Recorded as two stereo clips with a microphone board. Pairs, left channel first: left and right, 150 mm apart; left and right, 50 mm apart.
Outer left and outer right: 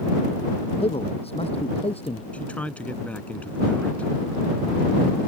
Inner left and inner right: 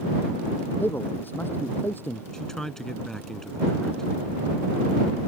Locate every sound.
0.8 s a man speaking: 40° left (ahead or behind); by 2.2 s 45° left (ahead or behind)
2.3 s a man speaking: 10° left (ahead or behind)